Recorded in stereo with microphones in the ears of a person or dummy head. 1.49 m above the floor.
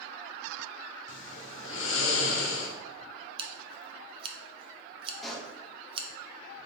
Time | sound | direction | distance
1.1 | snoring | 60° left (ahead or behind) | 0.7 m
3.4 | scissors | 25° right (ahead or behind) | 0.6 m
5.2 | a pop | 5° left (ahead or behind) | 0.6 m